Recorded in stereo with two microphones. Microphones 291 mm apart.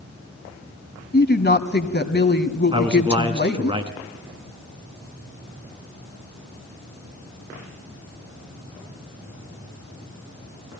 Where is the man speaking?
20° right (ahead or behind), 2 m.